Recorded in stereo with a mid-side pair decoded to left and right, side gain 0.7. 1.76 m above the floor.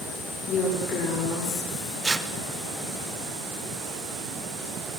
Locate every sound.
0.5 s a woman speaking: 40° left, 6 m
2.0 s tearing paper: 15° right, 1.6 m